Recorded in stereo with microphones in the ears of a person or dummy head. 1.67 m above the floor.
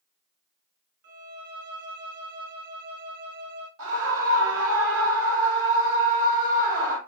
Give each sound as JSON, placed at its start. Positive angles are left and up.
{"t": 1.0, "sound": "a violin", "side_deg": -50, "distance_m": 0.6}
{"t": 3.8, "sound": "a scream", "side_deg": -75, "distance_m": 1.8}